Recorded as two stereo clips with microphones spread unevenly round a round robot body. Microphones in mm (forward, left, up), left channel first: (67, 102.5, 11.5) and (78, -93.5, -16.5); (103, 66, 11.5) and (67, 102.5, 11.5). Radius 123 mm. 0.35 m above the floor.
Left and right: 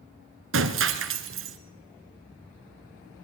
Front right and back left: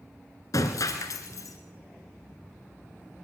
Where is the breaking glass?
75° right, 2.5 m.